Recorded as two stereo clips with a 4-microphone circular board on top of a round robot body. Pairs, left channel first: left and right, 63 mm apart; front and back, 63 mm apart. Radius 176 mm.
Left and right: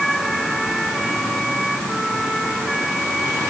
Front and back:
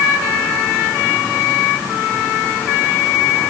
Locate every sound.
Only background noise.